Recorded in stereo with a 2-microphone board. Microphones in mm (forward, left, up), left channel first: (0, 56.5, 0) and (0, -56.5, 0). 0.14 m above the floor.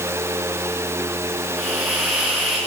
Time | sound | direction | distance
1.6 | a hiss | centre (ahead or behind) | 10 m